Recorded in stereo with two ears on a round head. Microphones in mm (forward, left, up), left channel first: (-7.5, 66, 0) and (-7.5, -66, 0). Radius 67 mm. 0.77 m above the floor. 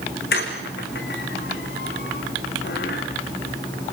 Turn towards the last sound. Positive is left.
turn(degrees=70)  # may be behind; listen again after turning